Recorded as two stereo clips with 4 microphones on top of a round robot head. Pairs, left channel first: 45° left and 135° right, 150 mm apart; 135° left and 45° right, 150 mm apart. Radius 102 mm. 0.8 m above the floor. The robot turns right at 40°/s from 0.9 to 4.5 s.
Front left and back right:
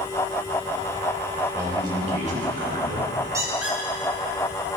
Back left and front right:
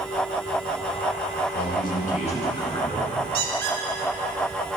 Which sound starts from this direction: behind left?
A man speaking, at 1.5 s.